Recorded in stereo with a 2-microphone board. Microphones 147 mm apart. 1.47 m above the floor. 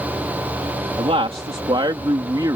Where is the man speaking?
45° right (ahead or behind); by 2.6 s 25° right (ahead or behind).